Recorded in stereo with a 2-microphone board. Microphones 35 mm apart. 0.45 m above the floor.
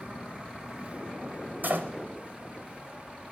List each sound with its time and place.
1.6 s a door slam: 60° right (ahead or behind), 1.2 m